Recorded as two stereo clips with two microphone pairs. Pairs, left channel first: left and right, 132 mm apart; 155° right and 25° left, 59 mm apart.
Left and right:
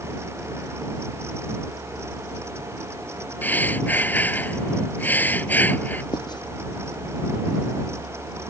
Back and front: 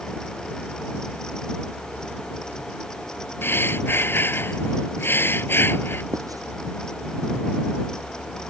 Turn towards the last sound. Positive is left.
turn(degrees=35)